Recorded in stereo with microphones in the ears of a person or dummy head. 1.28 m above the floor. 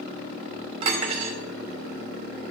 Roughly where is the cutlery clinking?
Right.